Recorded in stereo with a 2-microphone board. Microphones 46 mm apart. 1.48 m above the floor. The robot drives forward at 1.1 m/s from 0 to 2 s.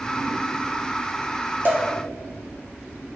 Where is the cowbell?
40° right (ahead or behind), 0.7 m; by 1.9 s 30° right (ahead or behind), 0.9 m.